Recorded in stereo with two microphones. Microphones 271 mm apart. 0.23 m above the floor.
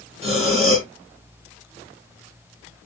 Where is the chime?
No chime in this recording.